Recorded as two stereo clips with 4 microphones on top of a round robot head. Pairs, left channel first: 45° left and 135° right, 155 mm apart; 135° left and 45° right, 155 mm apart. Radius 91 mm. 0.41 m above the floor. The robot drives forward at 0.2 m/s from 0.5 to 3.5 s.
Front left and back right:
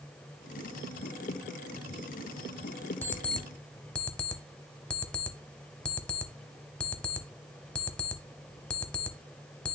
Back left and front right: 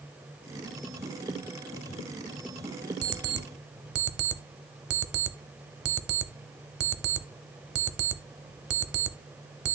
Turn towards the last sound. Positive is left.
turn(degrees=-40)